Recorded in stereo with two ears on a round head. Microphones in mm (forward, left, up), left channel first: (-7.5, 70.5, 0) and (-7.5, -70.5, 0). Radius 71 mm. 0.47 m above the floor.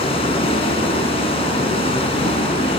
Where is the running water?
35° left (ahead or behind), 3.5 m.